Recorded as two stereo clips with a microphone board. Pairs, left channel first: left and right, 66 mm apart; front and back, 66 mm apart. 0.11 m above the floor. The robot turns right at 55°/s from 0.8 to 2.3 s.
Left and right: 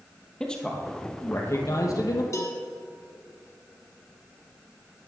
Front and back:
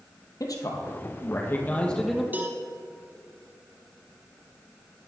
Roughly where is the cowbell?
Behind left.